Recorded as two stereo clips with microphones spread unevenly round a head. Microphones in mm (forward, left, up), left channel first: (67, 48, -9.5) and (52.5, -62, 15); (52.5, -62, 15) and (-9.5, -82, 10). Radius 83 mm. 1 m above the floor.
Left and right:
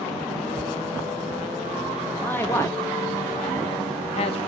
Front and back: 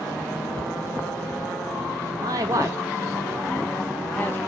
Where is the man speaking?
160° left, 1.2 m; by 4.4 s 90° left, 0.8 m.